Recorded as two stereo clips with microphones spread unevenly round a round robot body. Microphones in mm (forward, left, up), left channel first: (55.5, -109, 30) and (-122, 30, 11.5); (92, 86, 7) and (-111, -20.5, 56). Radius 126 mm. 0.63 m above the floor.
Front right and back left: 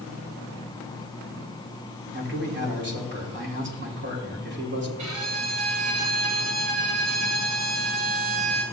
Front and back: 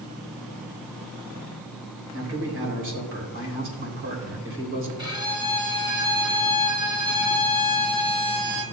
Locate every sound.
2.1 s a man speaking: 175° left, 3 m
5.0 s a violin: 135° left, 2 m